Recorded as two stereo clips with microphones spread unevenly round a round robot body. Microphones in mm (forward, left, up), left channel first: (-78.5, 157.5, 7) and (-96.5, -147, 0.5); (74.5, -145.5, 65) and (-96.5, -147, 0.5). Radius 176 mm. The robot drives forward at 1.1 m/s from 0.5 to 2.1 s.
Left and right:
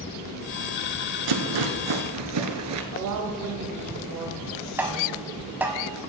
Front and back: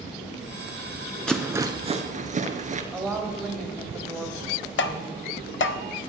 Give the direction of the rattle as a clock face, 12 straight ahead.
3 o'clock.